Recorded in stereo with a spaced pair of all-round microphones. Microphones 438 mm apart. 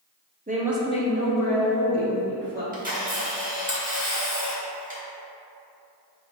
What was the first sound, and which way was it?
A woman speaking, 20° right (ahead or behind).